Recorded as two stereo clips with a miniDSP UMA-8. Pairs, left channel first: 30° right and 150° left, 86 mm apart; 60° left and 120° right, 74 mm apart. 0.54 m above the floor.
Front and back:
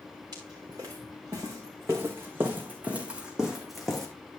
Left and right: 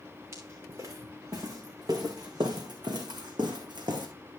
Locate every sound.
0.3 s footsteps: 165° right, 3.5 m; by 4.1 s 115° right, 2 m